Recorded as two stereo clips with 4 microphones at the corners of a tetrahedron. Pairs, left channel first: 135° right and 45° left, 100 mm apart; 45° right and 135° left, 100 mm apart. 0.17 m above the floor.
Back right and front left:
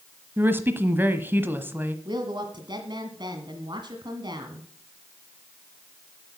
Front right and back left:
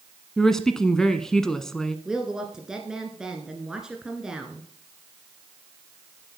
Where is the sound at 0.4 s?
30° left, 1.0 m.